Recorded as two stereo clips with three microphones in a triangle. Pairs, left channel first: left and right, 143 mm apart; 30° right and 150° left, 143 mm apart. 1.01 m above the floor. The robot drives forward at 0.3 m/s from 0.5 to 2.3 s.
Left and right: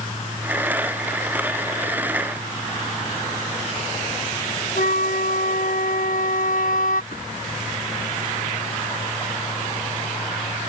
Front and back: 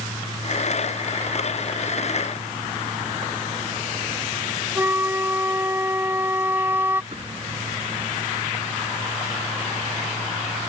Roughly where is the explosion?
Left.